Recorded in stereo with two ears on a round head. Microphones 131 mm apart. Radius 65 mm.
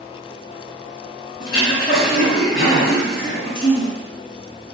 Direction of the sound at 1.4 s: 65° left (ahead or behind).